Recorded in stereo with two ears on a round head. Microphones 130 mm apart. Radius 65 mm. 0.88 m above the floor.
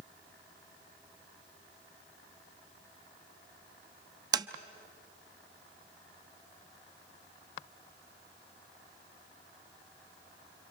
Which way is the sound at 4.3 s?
25° right (ahead or behind).